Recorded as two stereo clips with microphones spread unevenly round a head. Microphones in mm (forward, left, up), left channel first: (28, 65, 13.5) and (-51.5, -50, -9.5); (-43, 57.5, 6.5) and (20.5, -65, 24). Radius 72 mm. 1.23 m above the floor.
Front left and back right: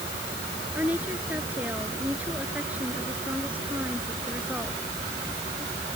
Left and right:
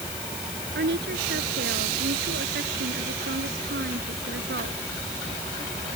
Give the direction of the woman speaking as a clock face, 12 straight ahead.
1 o'clock.